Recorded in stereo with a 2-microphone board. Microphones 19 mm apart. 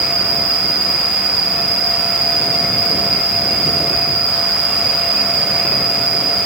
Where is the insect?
75° left (ahead or behind), 7.5 m.